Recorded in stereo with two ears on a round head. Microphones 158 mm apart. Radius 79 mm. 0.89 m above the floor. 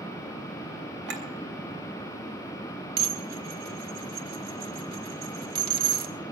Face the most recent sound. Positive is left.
turn(degrees=-55)  # may be behind; listen again after turning